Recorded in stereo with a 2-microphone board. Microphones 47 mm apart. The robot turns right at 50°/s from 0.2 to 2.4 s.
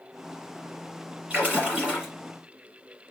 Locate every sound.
1.3 s a splash: 25° right (ahead or behind), 1.4 m; by 2.1 s 15° right (ahead or behind), 1.4 m